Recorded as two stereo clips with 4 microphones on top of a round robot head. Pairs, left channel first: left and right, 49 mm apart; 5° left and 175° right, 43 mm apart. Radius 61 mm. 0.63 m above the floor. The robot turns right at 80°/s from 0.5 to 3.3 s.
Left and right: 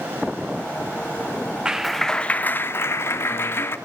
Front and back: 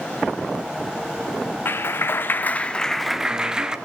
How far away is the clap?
About 1.6 m.